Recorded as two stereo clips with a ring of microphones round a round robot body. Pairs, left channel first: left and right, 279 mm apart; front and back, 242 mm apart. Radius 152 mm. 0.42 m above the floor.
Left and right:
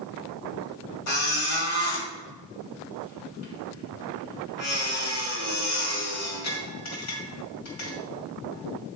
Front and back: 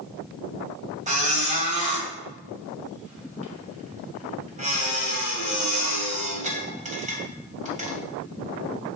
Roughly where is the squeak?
Behind left.